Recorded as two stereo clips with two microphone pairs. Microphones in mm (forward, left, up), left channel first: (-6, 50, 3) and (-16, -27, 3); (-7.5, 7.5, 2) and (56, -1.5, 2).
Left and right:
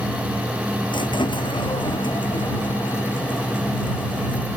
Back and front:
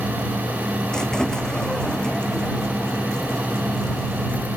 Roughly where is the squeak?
Left.